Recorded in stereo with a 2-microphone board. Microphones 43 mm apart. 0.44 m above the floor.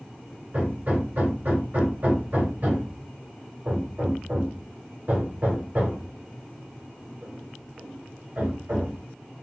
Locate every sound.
0.5 s hammering: 45° right (ahead or behind), 1.5 m